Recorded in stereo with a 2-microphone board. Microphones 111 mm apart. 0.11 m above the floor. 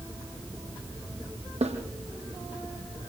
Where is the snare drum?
75° right (ahead or behind), 5 m.